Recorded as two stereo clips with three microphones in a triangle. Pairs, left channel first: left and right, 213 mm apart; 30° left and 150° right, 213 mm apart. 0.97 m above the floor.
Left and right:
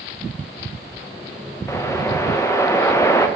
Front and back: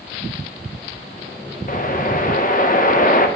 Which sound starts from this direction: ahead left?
A whoosh, at 1.7 s.